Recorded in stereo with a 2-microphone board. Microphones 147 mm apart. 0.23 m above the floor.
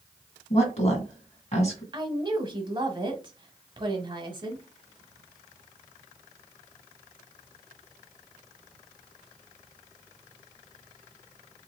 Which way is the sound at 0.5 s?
50° left (ahead or behind).